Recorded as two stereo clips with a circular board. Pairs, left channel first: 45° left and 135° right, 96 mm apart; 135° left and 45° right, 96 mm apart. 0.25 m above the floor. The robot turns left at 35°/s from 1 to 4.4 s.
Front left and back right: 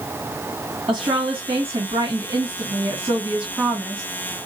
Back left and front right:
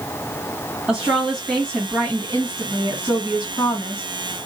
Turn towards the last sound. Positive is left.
turn(degrees=115)